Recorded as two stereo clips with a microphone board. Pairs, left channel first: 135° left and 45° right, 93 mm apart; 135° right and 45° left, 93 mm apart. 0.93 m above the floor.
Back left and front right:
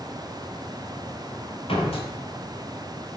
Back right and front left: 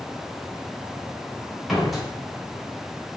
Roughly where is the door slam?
Behind left.